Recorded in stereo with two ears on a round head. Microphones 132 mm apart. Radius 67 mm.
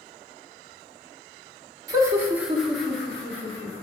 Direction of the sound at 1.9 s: 25° right (ahead or behind).